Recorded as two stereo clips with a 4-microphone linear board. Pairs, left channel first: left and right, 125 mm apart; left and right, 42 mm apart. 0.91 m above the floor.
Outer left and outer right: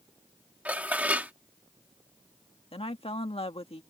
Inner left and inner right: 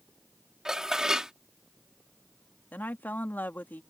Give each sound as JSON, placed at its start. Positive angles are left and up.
{"t": 0.7, "sound": "dishes clattering", "side_deg": -10}
{"t": 2.7, "sound": "a woman speaking", "side_deg": 50}